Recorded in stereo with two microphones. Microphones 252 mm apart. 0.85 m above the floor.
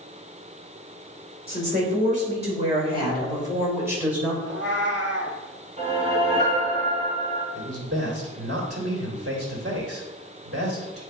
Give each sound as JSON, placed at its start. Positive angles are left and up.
{"t": 1.5, "sound": "a woman speaking", "side_deg": -40, "distance_m": 3.0}
{"t": 4.4, "sound": "a cat meowing", "side_deg": -45, "distance_m": 1.7}
{"t": 5.8, "sound": "a whoosh", "side_deg": -30, "distance_m": 3.0}
{"t": 7.5, "sound": "a man speaking", "side_deg": -60, "distance_m": 2.0}